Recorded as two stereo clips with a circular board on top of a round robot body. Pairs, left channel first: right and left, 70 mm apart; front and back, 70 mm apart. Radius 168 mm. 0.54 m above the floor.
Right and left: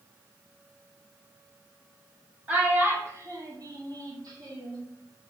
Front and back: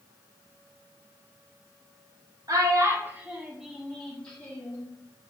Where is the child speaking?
155° left, 1.3 m; by 4.8 s 65° left, 1.7 m.